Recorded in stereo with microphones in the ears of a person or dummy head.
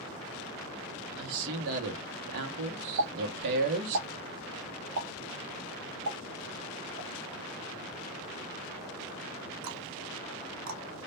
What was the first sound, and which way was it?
A man speaking, 55° right (ahead or behind).